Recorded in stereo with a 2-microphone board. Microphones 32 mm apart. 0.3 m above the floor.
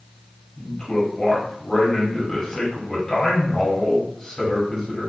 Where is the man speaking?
20° left (ahead or behind), 1.4 m.